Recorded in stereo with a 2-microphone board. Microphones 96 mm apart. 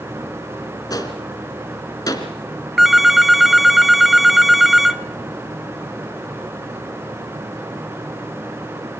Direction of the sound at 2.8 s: 5° right (ahead or behind).